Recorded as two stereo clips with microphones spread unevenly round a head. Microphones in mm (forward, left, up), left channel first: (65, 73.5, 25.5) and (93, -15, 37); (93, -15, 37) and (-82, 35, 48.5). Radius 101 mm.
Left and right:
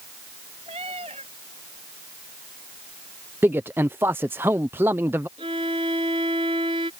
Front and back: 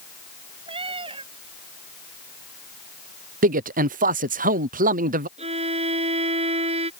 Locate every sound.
0.7 s a cat meowing: 130° right
3.4 s a man speaking: 150° right
5.4 s a violin: 135° right